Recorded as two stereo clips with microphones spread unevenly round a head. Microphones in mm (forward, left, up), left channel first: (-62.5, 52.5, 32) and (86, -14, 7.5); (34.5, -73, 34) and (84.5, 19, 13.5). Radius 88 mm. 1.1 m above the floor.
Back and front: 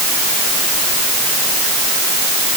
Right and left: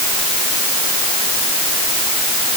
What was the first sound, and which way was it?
Only background noise.